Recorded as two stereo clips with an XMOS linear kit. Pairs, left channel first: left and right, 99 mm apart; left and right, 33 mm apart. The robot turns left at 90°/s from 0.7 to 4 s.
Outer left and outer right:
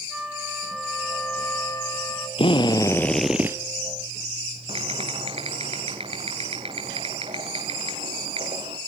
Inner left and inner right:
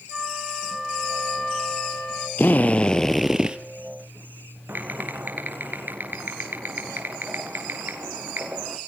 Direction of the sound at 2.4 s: 75° left.